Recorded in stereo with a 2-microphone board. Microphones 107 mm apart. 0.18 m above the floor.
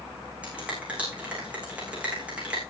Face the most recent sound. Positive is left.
turn(degrees=-15)  # may be behind; listen again after turning